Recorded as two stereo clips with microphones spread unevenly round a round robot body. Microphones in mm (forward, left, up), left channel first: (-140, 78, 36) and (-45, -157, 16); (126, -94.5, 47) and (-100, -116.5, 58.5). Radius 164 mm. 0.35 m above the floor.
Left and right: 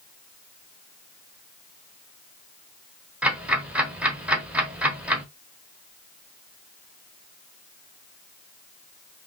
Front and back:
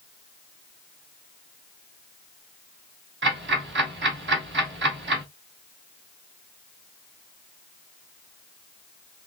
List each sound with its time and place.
3.2 s ticking: 150° right, 1.8 m